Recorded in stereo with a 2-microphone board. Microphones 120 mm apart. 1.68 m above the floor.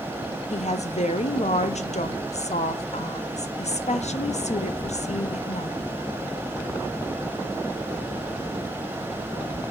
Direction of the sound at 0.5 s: 70° left (ahead or behind).